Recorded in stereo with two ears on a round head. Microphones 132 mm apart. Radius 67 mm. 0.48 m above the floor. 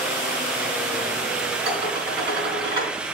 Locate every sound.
1.6 s dishes clattering: 35° right (ahead or behind), 3.5 m